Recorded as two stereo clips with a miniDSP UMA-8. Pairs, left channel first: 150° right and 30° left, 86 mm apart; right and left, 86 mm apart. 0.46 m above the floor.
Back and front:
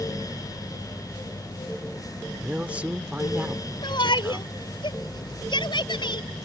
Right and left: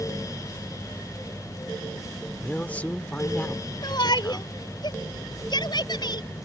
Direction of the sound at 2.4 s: 30° right.